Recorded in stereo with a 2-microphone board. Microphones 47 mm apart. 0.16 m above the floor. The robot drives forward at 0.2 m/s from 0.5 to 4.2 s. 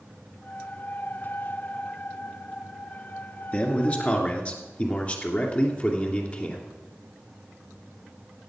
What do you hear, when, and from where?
3.5 s a man speaking: 35° left (ahead or behind), 1.9 m; by 6.7 s 30° left (ahead or behind), 2 m